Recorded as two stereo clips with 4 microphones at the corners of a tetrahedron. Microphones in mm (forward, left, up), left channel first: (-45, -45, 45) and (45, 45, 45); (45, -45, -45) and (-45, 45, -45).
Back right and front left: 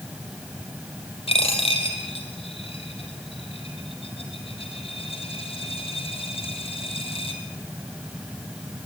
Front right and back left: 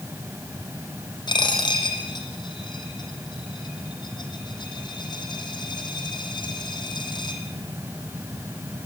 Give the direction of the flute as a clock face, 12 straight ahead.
I don't hear a flute.